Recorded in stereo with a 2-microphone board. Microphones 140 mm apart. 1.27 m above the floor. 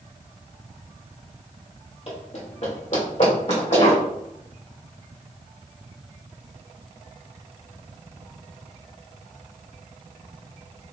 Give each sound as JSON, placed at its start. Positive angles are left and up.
{"t": 2.1, "sound": "running footsteps", "side_deg": 50, "distance_m": 1.8}